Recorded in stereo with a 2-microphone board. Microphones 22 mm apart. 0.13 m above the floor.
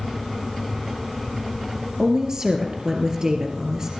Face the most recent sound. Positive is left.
turn(degrees=-25)  # may be behind; listen again after turning